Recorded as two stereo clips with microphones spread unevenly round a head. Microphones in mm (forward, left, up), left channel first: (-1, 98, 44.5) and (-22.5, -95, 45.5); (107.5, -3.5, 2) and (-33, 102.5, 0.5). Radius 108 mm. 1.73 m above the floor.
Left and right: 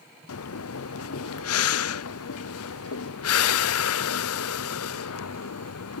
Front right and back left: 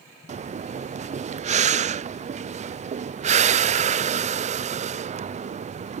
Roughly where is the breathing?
Left.